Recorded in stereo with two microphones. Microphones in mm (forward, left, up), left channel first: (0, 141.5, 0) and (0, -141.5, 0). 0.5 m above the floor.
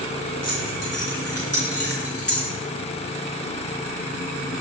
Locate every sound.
0.4 s keys jangling: 60° left (ahead or behind), 5.5 m; by 2.5 s 50° left (ahead or behind), 5 m